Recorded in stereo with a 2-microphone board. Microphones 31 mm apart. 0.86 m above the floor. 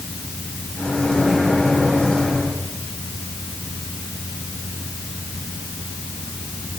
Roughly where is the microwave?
Centre.